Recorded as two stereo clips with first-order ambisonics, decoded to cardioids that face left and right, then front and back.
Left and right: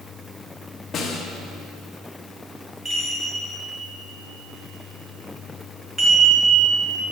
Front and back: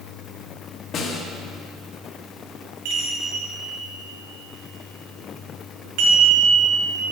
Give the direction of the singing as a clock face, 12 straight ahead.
No singing in this recording.